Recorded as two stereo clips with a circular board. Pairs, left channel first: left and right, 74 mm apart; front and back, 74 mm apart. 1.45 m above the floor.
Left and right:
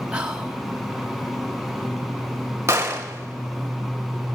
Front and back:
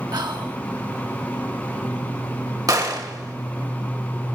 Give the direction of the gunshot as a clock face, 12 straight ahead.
5 o'clock.